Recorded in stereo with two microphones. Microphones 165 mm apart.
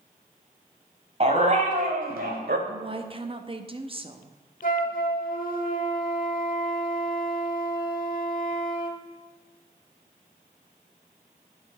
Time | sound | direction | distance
1.2 | a dog barking | 40° right (ahead or behind) | 1.7 m
2.7 | a woman speaking | 35° right (ahead or behind) | 0.7 m
4.6 | a flute | 55° left (ahead or behind) | 1.0 m